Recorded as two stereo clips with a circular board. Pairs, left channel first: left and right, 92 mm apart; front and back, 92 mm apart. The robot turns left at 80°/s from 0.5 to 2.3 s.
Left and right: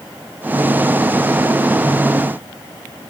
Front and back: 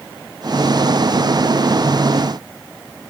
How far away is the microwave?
No microwave in this recording.